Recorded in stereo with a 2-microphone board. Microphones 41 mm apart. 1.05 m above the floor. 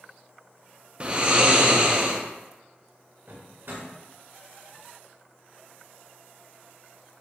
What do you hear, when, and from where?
1.0 s snoring: 30° right (ahead or behind), 0.5 m
3.3 s a drawer: 65° right (ahead or behind), 1.7 m